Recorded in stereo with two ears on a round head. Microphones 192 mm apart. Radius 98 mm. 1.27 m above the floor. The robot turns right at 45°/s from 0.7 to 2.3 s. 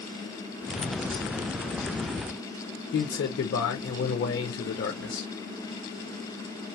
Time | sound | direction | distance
2.9 | a man speaking | 60° left (ahead or behind) | 0.7 m